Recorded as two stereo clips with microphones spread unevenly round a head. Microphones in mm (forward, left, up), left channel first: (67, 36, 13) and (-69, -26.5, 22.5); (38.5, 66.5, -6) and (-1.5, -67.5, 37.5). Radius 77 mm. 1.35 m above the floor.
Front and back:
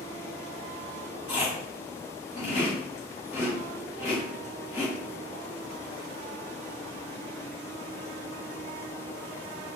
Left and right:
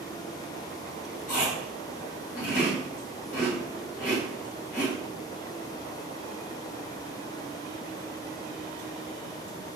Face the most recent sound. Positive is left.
turn(degrees=50)